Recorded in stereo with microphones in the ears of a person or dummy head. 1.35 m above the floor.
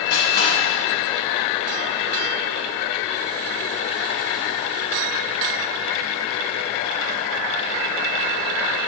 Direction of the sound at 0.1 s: 60° left (ahead or behind).